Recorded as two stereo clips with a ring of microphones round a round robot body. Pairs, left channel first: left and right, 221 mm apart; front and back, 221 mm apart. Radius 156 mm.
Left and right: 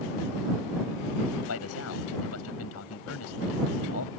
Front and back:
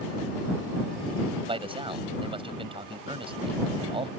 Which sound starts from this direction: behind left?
A man speaking, at 1.5 s.